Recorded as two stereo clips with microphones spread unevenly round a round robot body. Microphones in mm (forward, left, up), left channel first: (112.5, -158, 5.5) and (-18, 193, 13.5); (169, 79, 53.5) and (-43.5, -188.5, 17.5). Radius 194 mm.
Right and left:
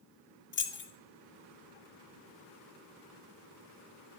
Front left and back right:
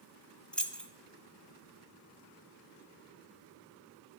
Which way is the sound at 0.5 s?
40° right.